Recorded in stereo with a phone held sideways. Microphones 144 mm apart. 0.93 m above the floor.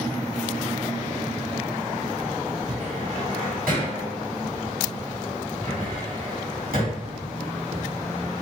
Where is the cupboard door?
80° right, 1.9 m.